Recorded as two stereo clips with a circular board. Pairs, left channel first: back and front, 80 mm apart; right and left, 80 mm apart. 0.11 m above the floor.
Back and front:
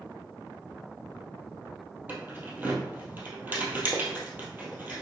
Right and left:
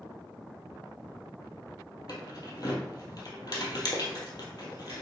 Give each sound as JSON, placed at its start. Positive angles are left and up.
{"t": 2.1, "sound": "keys jangling", "azimuth_deg": -65, "distance_m": 1.8}